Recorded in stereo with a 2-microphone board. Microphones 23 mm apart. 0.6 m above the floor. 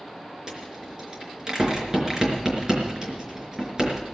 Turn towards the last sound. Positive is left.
turn(degrees=-30)  # may be behind; listen again after turning